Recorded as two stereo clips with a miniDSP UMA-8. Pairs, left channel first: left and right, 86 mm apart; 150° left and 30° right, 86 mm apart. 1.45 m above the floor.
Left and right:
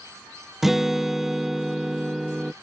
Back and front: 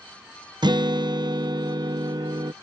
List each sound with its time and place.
0.6 s a guitar: 5° right